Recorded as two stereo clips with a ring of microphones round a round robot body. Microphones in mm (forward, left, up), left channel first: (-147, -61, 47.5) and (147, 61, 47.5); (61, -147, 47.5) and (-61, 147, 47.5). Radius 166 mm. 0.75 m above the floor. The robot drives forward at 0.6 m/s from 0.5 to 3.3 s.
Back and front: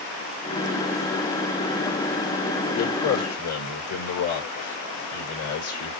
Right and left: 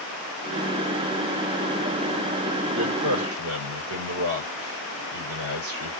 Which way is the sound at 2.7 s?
160° left.